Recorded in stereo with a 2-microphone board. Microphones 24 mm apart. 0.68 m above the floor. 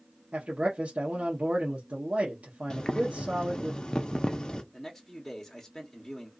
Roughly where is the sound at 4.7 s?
Centre.